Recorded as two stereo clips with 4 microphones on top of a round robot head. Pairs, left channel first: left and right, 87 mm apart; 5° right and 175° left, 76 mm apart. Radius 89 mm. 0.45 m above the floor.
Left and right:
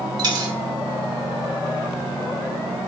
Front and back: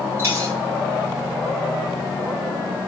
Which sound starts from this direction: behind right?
A dropped coin, at 0.2 s.